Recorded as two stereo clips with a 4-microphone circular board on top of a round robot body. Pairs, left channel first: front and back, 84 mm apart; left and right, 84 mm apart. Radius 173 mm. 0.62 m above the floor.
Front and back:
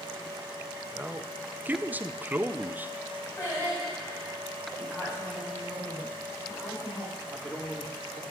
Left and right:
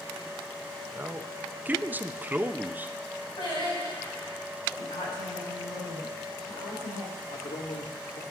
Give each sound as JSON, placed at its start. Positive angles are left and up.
{"t": 0.9, "sound": "a man speaking", "azimuth_deg": -135, "distance_m": 0.8}
{"t": 3.4, "sound": "singing", "azimuth_deg": 60, "distance_m": 4.5}
{"t": 4.8, "sound": "a woman speaking", "azimuth_deg": 70, "distance_m": 6.0}
{"t": 7.2, "sound": "a man speaking", "azimuth_deg": 95, "distance_m": 1.9}